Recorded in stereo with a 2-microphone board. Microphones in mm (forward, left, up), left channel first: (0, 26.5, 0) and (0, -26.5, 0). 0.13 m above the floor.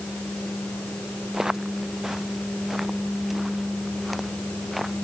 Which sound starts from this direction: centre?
Footsteps, at 1.3 s.